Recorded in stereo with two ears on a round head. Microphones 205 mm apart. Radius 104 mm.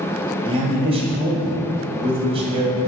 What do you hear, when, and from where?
0.5 s a man speaking: 25° right (ahead or behind), 2.0 m